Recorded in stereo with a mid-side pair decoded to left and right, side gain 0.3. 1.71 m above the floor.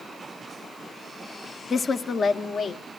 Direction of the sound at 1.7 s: 50° left.